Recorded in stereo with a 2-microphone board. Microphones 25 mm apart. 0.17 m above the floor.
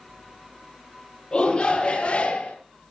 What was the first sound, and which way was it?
A shout, 35° left (ahead or behind).